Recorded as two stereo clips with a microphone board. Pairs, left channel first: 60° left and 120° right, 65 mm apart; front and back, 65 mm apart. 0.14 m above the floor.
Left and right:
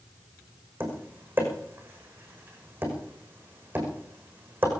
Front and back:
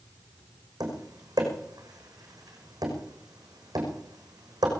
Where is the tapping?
Straight behind, 5.5 m.